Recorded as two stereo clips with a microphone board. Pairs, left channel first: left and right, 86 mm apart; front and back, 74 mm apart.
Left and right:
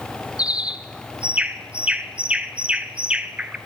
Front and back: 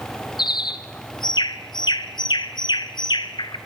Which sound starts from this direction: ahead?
A bird, at 0.4 s.